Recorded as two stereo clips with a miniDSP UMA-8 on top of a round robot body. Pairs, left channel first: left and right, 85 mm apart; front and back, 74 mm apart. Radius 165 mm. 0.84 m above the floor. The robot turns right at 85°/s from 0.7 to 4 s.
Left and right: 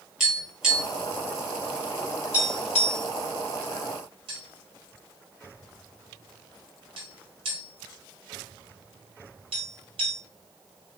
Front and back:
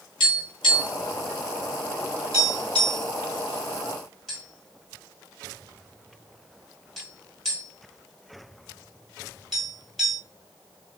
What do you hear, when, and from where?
0.2 s tapping: 10° right, 1.9 m; by 10.2 s 90° right, 1.9 m